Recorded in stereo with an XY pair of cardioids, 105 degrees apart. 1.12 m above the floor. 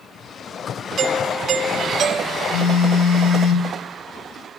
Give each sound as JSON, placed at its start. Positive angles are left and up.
{"t": 1.0, "sound": "a doorbell", "azimuth_deg": -60, "distance_m": 2.5}
{"t": 2.5, "sound": "a phone buzzing", "azimuth_deg": 70, "distance_m": 4.0}